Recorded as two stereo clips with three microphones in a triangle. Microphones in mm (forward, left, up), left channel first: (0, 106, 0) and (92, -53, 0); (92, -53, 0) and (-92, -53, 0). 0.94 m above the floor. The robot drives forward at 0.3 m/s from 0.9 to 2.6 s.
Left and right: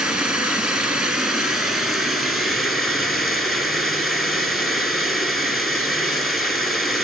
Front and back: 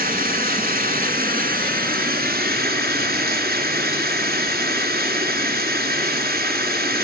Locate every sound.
0.0 s running water: 145° right, 3 m; by 7.1 s 150° right, 3.5 m